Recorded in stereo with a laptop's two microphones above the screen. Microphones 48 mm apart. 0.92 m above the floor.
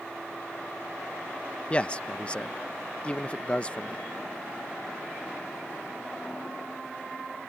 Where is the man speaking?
25° left (ahead or behind).